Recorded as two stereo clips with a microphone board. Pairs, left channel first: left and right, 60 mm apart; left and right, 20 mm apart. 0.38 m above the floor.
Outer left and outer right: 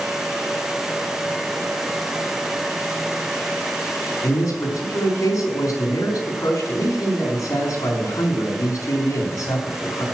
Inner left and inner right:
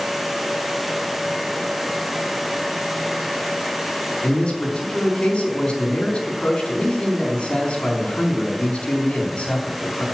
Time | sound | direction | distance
4.2 | a man speaking | 70° left (ahead or behind) | 4 m